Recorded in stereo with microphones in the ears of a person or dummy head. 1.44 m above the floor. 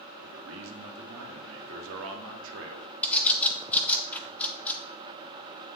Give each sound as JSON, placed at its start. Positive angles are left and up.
{"t": 0.2, "sound": "a man speaking", "side_deg": -75, "distance_m": 1.3}
{"t": 3.0, "sound": "a bird", "side_deg": 5, "distance_m": 0.5}